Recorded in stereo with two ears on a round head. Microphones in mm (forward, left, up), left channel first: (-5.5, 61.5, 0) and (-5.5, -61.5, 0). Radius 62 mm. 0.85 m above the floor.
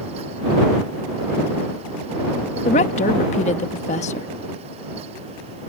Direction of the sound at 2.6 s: 55° left (ahead or behind).